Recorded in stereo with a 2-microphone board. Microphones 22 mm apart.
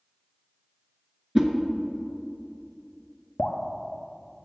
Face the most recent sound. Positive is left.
turn(degrees=70)  # may be behind; listen again after turning